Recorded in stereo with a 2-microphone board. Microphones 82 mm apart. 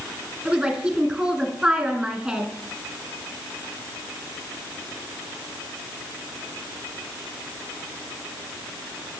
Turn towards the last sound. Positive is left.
turn(degrees=-5)  # may be behind; listen again after turning